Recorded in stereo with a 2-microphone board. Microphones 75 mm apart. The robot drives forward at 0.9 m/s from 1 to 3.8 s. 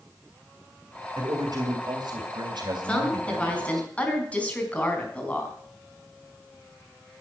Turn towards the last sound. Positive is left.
turn(degrees=15)  # may be behind; listen again after turning